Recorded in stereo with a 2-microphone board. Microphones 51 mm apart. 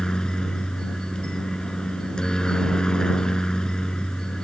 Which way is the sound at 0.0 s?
15° left (ahead or behind).